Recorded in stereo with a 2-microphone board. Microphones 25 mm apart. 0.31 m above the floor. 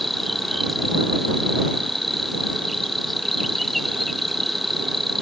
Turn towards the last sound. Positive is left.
turn(degrees=5)  # may be behind; listen again after turning